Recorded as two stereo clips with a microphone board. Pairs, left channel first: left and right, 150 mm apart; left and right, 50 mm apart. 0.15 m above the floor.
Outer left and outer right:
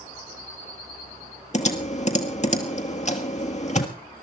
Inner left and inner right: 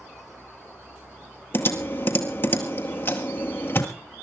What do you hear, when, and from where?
1.5 s typing on a keyboard: 50° left (ahead or behind), 1.5 m